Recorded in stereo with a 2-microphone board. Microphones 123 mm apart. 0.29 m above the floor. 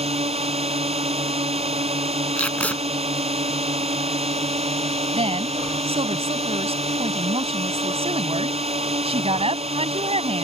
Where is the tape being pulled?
10° left (ahead or behind).